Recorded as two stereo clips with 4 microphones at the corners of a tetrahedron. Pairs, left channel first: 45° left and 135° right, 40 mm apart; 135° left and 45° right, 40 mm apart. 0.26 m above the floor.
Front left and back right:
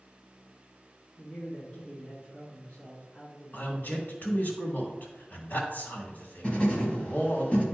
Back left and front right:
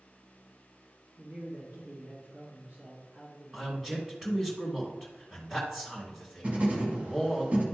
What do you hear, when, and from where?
1.2 s a man speaking: 15° right, 3 m
3.5 s a man speaking: 35° left, 2.5 m
6.4 s writing: straight ahead, 1.9 m